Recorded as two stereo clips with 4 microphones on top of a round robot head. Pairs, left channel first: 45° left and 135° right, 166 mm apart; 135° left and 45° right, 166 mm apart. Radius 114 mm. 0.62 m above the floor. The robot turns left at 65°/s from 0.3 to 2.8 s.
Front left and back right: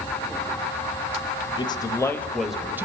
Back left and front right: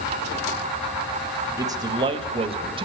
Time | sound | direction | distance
1.6 | a man speaking | 15° left | 1.1 m